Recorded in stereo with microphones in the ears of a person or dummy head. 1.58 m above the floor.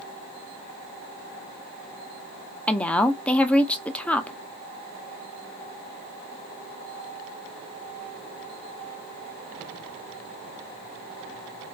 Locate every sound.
2.7 s a woman speaking: 10° left (ahead or behind), 0.5 m